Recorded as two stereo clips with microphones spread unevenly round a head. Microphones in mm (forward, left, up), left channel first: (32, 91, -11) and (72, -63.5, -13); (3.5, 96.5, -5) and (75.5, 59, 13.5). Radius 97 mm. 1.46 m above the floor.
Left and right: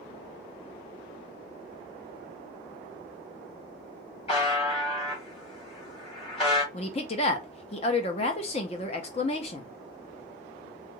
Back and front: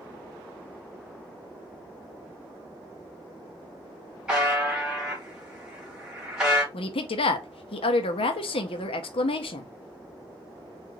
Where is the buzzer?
50° left, 2 m.